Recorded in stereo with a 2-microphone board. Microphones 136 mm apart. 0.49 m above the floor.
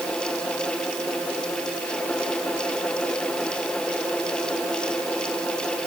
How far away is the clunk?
No clunk in this recording.